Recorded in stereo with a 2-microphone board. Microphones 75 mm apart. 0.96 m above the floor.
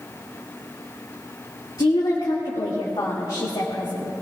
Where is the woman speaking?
75° left (ahead or behind), 2 m.